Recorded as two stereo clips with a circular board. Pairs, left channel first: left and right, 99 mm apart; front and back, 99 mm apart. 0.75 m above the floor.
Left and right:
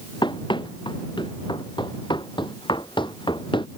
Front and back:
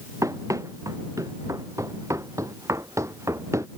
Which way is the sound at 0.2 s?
125° left.